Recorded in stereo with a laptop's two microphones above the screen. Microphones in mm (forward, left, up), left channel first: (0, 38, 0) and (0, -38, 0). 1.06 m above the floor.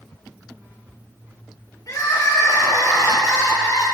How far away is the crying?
About 2.5 m.